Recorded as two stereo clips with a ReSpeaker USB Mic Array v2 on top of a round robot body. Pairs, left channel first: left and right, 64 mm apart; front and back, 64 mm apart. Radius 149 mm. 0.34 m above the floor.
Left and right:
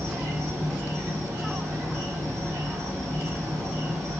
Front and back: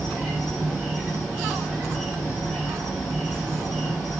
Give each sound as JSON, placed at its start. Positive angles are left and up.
{"t": 0.0, "sound": "an insect", "azimuth_deg": -80, "distance_m": 1.6}